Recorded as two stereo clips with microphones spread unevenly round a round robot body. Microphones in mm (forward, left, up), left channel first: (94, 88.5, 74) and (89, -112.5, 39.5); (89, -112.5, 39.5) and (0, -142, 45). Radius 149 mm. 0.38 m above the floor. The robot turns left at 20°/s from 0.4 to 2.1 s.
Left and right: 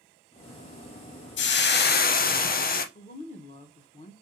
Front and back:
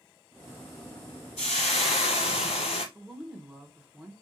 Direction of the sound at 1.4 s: 55° left.